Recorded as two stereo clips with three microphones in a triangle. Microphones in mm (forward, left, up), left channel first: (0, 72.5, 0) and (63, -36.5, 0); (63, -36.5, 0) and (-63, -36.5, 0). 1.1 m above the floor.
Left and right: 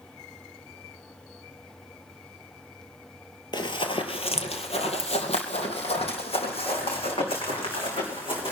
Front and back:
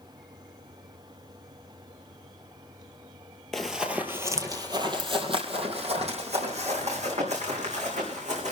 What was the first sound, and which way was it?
Running footsteps, 85° left.